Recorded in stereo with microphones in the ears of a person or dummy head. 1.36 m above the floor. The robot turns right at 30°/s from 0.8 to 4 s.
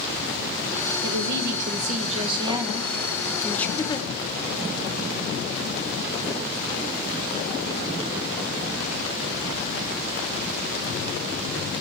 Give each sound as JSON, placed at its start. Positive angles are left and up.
{"t": 1.0, "sound": "a woman speaking", "azimuth_deg": -70, "distance_m": 1.1}
{"t": 3.8, "sound": "a giggle", "side_deg": 20, "distance_m": 0.8}